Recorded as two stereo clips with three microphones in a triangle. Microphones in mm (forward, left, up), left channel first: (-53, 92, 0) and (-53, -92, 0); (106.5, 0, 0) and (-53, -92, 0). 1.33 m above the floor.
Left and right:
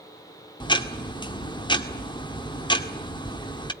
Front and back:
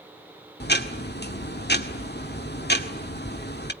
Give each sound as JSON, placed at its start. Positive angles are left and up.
{"t": 0.6, "sound": "ticking", "azimuth_deg": 30, "distance_m": 1.8}